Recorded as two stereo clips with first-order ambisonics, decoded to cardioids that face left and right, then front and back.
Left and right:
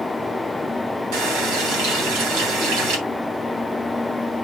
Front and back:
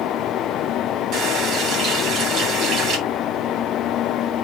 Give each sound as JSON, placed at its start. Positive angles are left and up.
{"t": 1.1, "sound": "a running tap", "azimuth_deg": -125, "distance_m": 3.0}